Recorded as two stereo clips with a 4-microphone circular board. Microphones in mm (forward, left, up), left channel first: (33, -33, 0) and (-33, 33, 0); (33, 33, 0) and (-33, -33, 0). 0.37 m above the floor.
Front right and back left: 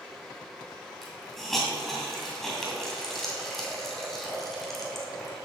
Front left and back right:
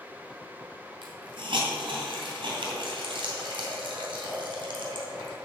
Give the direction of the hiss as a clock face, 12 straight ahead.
4 o'clock.